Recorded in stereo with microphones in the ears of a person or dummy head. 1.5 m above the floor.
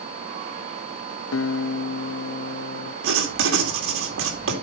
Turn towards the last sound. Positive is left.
turn(degrees=-80)